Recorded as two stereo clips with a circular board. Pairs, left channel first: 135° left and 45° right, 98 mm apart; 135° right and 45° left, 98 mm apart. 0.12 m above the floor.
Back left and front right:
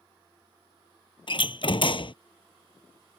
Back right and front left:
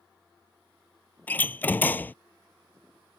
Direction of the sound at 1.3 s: 155° left.